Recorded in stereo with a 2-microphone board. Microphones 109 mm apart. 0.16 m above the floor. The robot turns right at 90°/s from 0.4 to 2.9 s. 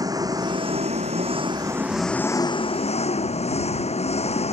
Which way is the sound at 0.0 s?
145° right.